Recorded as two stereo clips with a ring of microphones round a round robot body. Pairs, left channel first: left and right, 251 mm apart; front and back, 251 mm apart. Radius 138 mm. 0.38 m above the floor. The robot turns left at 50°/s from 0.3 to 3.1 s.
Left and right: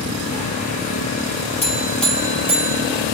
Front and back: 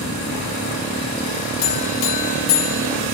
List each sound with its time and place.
1.6 s a buzzer: 25° left, 3.5 m; by 3.0 s 50° right, 3.5 m